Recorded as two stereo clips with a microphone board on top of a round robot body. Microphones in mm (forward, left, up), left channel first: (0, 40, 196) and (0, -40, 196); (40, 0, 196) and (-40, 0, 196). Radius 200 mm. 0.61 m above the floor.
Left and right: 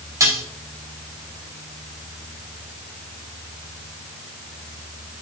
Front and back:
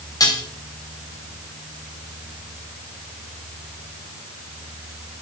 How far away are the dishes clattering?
About 2.5 m.